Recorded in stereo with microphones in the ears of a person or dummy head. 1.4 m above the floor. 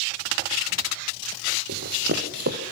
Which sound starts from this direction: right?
Running footsteps, at 1.7 s.